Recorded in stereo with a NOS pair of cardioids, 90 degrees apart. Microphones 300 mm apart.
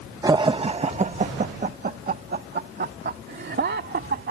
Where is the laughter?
15° right; by 4.3 s 35° right.